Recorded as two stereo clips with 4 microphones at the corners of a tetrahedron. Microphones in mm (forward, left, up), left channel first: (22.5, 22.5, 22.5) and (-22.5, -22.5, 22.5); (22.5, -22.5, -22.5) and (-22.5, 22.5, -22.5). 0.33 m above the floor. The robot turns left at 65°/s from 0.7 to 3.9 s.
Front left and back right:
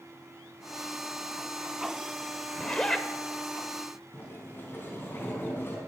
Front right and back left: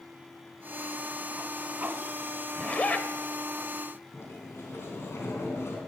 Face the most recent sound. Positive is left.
turn(degrees=-5)